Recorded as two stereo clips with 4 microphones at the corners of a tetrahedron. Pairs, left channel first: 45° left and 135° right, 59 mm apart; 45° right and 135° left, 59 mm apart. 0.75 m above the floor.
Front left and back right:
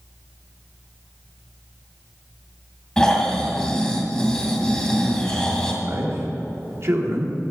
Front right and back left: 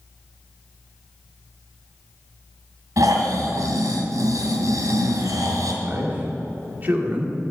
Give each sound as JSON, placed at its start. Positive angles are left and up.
{"t": 3.0, "sound": "snoring", "azimuth_deg": 120, "distance_m": 2.0}
{"t": 5.8, "sound": "a man speaking", "azimuth_deg": -170, "distance_m": 2.0}